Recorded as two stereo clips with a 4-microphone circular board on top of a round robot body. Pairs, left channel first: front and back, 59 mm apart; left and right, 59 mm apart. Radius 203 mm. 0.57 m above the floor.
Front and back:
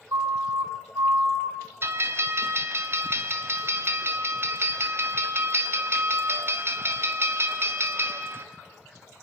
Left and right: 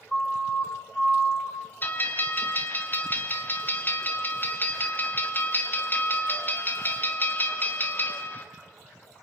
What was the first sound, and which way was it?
A siren, 170° left.